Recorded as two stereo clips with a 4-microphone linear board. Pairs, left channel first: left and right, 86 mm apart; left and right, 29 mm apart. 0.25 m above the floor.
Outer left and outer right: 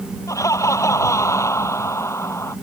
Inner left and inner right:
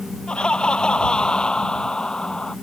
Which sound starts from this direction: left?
Laughter, at 0.3 s.